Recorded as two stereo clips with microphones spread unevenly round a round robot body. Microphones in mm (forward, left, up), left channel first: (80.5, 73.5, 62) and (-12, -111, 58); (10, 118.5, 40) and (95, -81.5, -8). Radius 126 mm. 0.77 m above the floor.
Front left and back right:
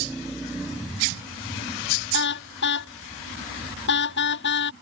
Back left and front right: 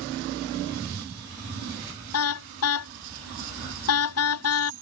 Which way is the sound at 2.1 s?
105° left.